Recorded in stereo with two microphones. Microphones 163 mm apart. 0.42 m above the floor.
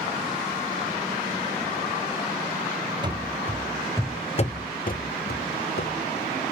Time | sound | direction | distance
3.0 | running footsteps | 25° right (ahead or behind) | 0.7 m